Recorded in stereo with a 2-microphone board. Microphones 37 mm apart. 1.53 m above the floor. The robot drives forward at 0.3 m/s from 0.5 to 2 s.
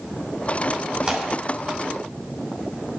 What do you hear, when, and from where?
1.0 s tearing paper: 25° right (ahead or behind), 3 m